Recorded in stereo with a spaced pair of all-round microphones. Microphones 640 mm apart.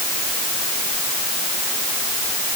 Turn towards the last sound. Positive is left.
No sound to turn to.